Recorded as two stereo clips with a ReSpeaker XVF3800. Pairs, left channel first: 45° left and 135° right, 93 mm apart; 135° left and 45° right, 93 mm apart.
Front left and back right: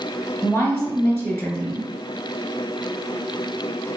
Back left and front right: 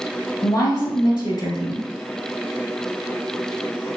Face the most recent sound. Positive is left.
turn(degrees=95)